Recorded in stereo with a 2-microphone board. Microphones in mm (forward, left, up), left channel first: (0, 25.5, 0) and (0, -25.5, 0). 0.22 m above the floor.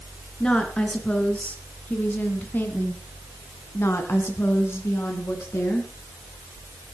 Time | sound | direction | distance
0.4 | a woman speaking | 15° left (ahead or behind) | 3 m